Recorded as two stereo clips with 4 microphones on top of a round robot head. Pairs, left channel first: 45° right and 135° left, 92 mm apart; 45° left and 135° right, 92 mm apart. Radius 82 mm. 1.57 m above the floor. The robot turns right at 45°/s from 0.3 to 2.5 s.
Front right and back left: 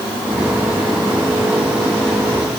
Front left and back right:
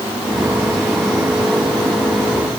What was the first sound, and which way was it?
Only background noise.